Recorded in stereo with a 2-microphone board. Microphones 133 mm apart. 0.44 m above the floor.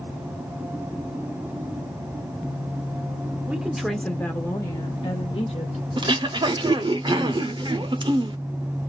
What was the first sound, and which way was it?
A woman speaking, 10° right (ahead or behind).